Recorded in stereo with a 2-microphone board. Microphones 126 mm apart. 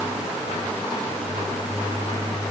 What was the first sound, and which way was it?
Only background noise.